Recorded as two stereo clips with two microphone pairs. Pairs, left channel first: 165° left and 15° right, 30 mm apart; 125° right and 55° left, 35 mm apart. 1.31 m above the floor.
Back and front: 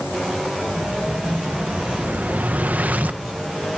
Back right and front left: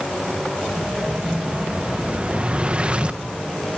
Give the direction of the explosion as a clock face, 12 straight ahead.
12 o'clock.